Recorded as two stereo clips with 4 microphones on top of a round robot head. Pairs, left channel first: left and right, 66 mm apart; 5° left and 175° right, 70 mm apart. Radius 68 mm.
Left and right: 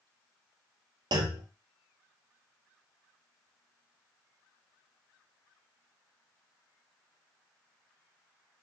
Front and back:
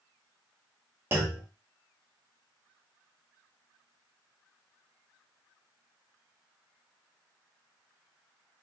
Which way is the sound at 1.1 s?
110° right.